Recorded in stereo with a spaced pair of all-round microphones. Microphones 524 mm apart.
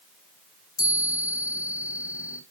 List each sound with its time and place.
0.8 s a chime: 60° left (ahead or behind), 2.5 m